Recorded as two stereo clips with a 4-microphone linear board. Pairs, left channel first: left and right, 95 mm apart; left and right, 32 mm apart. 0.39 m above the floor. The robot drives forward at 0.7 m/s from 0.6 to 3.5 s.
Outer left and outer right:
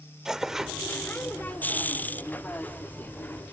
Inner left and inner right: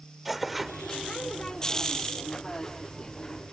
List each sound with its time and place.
0.2 s tearing paper: 5° right (ahead or behind)